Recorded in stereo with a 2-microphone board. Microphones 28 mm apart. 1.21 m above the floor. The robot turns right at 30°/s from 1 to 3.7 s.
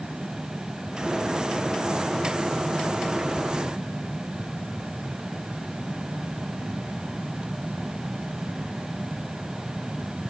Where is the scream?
No scream in this recording.